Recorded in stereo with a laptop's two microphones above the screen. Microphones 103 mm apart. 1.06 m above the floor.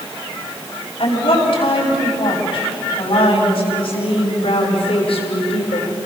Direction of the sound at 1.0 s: 50° left (ahead or behind).